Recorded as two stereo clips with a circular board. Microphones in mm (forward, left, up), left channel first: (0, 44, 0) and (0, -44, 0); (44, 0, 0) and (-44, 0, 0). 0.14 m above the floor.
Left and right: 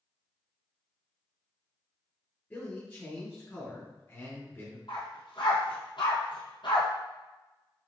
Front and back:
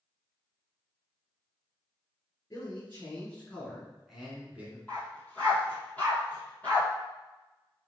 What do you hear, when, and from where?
2.5 s a man speaking: 40° left, 1.9 m; by 4.8 s 130° left, 1.7 m
4.9 s a dog barking: 75° left, 1.6 m